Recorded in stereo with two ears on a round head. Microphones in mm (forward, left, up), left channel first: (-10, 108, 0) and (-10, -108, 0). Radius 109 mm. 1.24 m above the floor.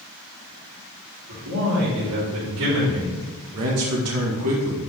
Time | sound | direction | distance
1.3 | a man speaking | 80° right | 4 m
3.5 | a man speaking | 70° right (ahead or behind) | 1.8 m